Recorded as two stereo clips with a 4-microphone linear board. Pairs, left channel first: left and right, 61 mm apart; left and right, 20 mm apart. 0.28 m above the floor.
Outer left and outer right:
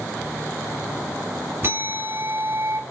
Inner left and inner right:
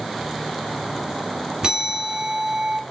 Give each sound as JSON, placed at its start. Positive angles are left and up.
{"t": 1.6, "sound": "a bell", "side_deg": -40, "distance_m": 1.5}